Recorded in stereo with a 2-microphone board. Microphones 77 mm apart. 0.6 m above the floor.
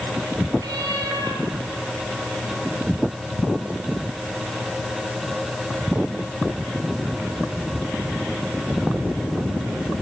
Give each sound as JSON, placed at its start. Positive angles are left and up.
{"t": 0.6, "sound": "a cat meowing", "side_deg": -65, "distance_m": 6.5}